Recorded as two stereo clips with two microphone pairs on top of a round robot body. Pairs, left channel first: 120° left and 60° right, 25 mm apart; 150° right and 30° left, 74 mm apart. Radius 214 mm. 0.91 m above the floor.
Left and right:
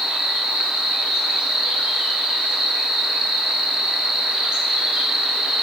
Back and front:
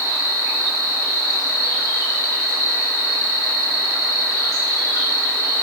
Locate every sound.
0.0 s an insect: 110° right, 2 m